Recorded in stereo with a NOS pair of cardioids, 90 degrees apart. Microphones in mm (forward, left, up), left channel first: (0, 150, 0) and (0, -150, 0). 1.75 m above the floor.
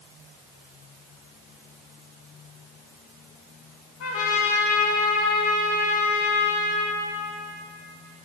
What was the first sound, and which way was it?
A trumpet, 60° left.